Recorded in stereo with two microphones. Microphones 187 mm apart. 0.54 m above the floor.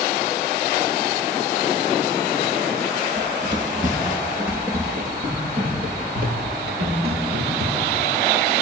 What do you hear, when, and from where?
3.2 s running footsteps: 40° right (ahead or behind), 4 m; by 8.0 s 60° right (ahead or behind), 6 m